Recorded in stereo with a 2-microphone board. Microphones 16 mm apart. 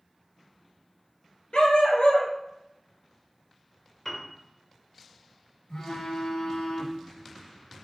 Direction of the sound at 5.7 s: 85° left.